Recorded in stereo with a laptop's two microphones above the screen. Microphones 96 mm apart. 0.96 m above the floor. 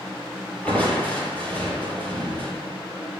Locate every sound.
0.7 s crushing: 15° left (ahead or behind), 6 m